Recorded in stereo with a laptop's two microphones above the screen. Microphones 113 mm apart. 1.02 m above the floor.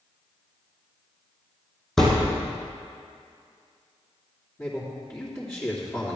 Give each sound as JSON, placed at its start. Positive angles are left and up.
{"t": 2.0, "sound": "a thud", "side_deg": 5, "distance_m": 2.0}
{"t": 4.6, "sound": "a man speaking", "side_deg": 25, "distance_m": 3.0}